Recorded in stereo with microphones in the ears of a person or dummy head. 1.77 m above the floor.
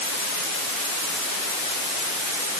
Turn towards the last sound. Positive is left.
No sound to turn to.